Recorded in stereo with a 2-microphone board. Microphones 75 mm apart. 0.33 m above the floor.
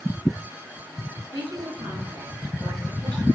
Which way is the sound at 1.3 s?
80° right.